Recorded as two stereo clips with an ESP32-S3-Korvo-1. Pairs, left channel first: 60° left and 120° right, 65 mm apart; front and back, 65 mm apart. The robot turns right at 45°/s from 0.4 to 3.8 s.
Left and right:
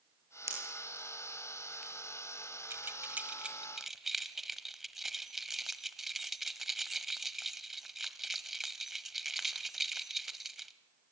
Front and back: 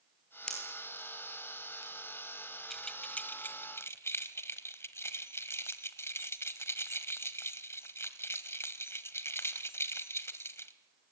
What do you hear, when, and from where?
0.5 s a pop: 80° right, 7.5 m; by 1.9 s 15° right, 7.5 m
2.7 s keys jangling: 85° right, 1.3 m; by 10.7 s 35° right, 1.3 m